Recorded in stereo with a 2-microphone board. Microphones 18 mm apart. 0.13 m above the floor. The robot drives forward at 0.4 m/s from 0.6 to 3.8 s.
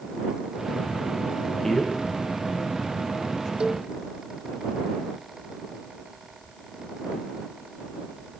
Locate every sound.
1.6 s a man speaking: 25° left (ahead or behind), 8.5 m
3.6 s a cowbell: 70° right (ahead or behind), 1.7 m; by 3.9 s 65° right (ahead or behind), 1.7 m